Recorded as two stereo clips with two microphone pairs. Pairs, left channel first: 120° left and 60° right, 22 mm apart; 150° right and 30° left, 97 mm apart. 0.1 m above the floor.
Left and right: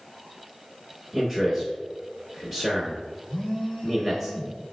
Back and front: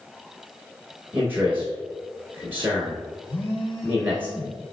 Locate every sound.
1.1 s a man speaking: 10° right, 1.1 m
3.3 s a phone buzzing: 175° right, 1.0 m